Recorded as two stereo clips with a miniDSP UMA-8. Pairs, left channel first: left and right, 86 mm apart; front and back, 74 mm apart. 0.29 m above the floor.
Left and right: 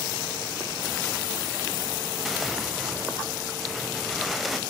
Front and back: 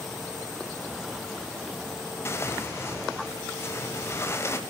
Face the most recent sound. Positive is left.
turn(degrees=0)